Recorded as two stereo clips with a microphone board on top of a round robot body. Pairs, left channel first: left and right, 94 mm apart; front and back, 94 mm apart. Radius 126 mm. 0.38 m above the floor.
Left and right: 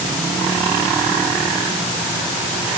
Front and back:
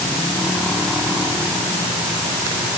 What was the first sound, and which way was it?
Only background noise.